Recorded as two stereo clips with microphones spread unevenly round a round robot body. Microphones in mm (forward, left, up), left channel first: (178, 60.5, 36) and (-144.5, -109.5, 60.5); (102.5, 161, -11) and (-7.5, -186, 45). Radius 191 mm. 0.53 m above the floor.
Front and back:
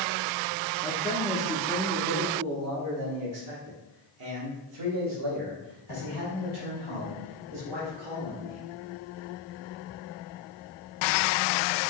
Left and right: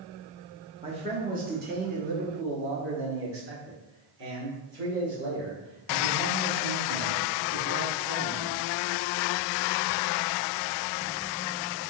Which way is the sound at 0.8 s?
35° right.